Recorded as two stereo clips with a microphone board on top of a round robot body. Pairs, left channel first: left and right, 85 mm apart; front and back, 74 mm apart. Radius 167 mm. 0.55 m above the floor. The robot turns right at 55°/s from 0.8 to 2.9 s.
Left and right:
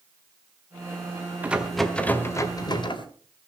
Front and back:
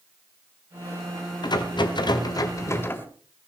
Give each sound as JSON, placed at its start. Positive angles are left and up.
{"t": 1.4, "sound": "a rattle", "azimuth_deg": -20, "distance_m": 1.9}